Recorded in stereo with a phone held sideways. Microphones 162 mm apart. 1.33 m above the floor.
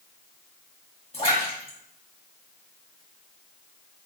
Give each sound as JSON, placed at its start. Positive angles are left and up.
{"t": 1.1, "sound": "a splash", "side_deg": 35, "distance_m": 1.6}